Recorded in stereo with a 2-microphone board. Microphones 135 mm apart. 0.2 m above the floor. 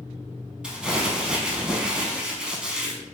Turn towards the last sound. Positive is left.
turn(degrees=-5)  # may be behind; listen again after turning